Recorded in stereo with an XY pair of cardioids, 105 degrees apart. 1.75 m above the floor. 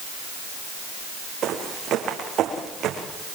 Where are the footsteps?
65° right, 6.5 m.